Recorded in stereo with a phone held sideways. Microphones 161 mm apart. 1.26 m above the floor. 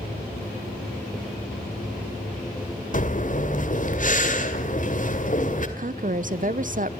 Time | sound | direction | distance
2.9 | breathing | 55° left (ahead or behind) | 1.9 m
5.8 | a woman speaking | 55° right (ahead or behind) | 0.6 m